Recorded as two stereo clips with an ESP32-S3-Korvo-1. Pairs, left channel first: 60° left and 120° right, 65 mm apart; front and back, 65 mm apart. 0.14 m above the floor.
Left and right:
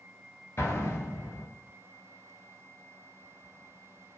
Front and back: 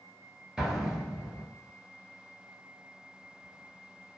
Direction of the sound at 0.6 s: 100° left.